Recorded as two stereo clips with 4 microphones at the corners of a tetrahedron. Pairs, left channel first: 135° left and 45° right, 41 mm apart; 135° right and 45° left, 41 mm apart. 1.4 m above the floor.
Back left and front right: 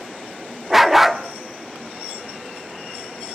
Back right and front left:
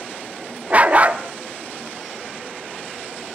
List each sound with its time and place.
0.7 s a dog barking: 35° left, 1.0 m